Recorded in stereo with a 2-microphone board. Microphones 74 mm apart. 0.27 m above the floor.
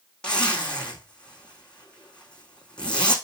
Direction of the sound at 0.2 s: 10° left (ahead or behind).